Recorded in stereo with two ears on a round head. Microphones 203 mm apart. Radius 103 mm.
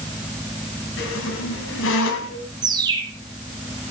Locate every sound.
1.0 s a squeak: 55° left (ahead or behind), 3.5 m
2.6 s a bird: 20° right (ahead or behind), 7.5 m